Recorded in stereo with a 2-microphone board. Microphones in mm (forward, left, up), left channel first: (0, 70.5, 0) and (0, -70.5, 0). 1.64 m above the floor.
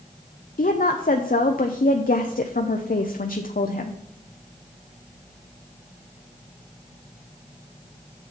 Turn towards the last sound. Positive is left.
turn(degrees=70)  # may be behind; listen again after turning